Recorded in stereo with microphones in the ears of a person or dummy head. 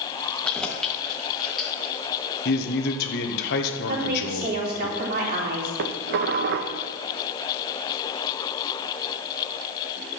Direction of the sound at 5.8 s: 60° right (ahead or behind).